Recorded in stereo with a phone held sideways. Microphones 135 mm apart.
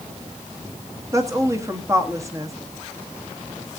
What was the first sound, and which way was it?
A woman speaking, 20° right (ahead or behind).